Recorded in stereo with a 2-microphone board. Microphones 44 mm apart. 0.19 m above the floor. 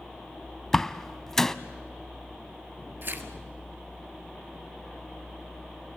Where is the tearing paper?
55° right (ahead or behind), 1.6 m.